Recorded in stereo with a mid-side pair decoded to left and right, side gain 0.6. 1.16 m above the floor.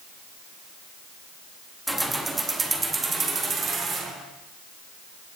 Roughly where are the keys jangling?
Ahead.